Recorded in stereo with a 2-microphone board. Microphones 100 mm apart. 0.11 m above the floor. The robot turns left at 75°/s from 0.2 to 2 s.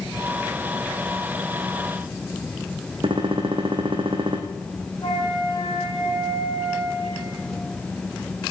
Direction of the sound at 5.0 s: 45° left (ahead or behind).